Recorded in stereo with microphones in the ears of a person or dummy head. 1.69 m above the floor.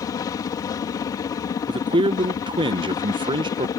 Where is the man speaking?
30° right (ahead or behind).